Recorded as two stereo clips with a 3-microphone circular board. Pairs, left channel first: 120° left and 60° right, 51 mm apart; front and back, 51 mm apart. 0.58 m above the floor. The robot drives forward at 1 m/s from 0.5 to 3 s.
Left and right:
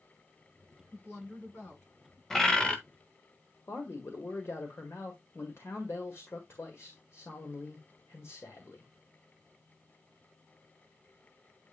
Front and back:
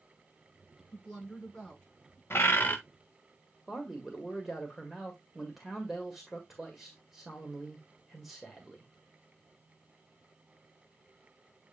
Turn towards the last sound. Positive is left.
turn(degrees=95)